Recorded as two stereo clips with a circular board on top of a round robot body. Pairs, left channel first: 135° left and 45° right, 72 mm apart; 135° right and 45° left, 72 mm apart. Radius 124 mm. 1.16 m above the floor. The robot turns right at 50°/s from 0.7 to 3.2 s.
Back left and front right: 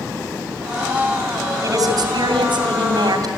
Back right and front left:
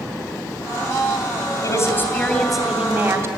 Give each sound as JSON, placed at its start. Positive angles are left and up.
{"t": 1.6, "sound": "a woman speaking", "azimuth_deg": -90, "distance_m": 3.0}